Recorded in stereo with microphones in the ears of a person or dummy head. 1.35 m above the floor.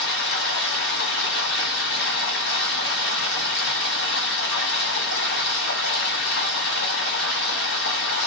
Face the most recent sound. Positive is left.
turn(degrees=45)  # may be behind; listen again after turning